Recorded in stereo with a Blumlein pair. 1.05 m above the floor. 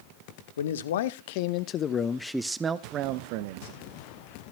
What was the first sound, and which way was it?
A man speaking, 60° left.